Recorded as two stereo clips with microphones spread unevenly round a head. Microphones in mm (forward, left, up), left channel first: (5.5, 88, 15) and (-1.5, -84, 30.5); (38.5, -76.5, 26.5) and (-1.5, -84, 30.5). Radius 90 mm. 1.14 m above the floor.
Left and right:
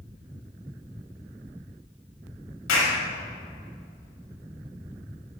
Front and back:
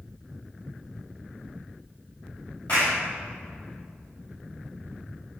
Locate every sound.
2.7 s a clap: 85° left, 5.5 m